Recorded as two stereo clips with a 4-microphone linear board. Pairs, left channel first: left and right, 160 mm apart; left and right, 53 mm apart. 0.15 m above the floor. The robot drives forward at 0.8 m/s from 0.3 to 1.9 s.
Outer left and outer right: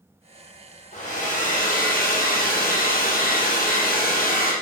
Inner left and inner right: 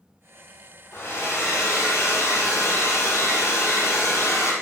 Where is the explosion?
No explosion in this recording.